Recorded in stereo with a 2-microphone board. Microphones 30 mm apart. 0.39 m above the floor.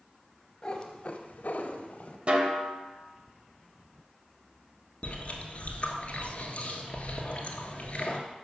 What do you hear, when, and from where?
0.6 s a cat meowing: 25° left (ahead or behind), 0.9 m; by 2.2 s 50° left (ahead or behind), 0.9 m
2.3 s a snare drum: 45° right (ahead or behind), 0.9 m
5.0 s chewing: 45° left (ahead or behind), 1.1 m